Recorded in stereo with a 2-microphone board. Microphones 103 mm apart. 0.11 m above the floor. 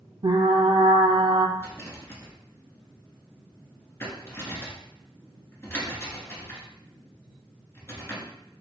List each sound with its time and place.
0.2 s frying: 60° right (ahead or behind), 0.6 m
1.6 s a rattle: 30° left (ahead or behind), 1.4 m